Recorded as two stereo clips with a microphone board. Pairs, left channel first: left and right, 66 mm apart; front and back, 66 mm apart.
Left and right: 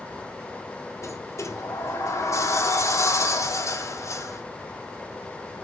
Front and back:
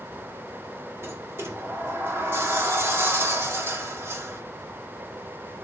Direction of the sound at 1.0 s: 130° left.